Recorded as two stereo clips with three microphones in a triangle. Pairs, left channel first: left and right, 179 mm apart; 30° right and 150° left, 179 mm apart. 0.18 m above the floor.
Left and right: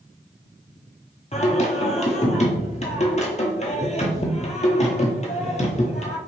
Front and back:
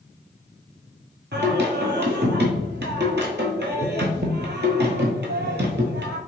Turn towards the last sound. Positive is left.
turn(degrees=140)